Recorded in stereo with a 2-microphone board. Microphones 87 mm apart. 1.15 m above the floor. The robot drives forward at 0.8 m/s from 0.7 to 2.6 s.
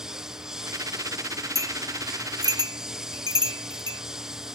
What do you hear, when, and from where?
0.0 s a lawn mower: 5° right (ahead or behind)
1.6 s a bell: 35° right (ahead or behind); by 4.0 s 55° right (ahead or behind)